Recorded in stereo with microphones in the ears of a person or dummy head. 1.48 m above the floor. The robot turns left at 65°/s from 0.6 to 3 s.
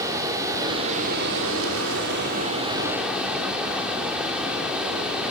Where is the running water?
20° right, 4.5 m; by 5.3 s 175° right, 4.5 m.